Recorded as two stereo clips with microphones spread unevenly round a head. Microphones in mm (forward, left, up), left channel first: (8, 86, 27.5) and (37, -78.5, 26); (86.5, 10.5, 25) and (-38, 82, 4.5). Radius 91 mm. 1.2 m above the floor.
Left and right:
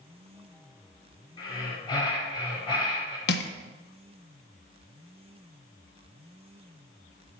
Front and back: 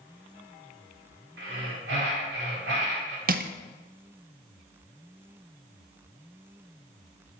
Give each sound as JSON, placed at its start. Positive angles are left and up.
{"t": 1.4, "sound": "breathing", "azimuth_deg": 165, "distance_m": 1.9}
{"t": 3.3, "sound": "crushing", "azimuth_deg": 130, "distance_m": 0.6}